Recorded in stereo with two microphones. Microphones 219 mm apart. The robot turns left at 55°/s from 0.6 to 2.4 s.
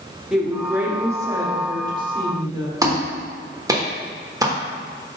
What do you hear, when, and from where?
0.3 s a woman speaking: 5° right (ahead or behind), 1.1 m; by 2.8 s 20° right (ahead or behind), 1.1 m
2.8 s a clap: 15° right (ahead or behind), 1.1 m